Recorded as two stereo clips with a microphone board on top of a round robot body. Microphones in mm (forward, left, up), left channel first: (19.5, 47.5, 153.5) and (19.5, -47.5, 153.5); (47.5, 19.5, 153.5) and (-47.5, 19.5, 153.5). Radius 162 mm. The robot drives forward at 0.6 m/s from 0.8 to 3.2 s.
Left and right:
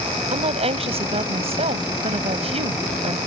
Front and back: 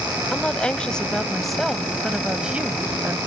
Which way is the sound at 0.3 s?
80° right.